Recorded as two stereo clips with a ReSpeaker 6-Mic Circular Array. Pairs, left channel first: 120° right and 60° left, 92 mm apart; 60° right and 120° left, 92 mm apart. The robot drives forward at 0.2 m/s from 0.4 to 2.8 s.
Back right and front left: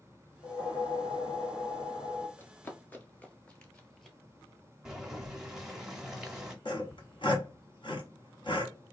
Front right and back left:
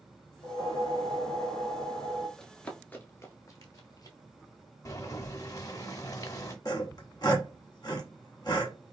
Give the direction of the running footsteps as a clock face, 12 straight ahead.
4 o'clock.